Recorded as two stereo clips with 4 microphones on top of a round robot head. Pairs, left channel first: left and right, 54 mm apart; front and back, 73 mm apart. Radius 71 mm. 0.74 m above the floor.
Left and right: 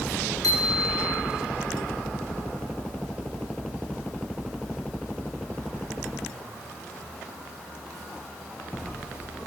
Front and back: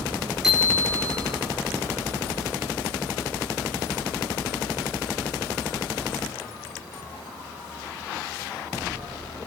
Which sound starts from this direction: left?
A bicycle bell, at 0.4 s.